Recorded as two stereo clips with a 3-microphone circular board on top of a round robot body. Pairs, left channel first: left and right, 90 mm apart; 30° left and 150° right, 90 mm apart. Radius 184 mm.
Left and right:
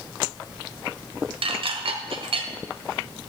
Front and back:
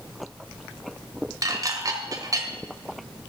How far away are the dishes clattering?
About 1.8 m.